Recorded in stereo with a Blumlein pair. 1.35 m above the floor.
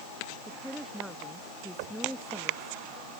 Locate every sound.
0.5 s a woman speaking: 5° right
1.8 s knocking: 45° right